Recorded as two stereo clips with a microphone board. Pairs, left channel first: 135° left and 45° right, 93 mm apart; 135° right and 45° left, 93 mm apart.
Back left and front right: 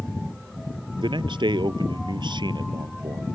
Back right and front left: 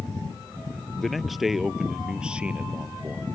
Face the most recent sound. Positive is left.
turn(degrees=-20)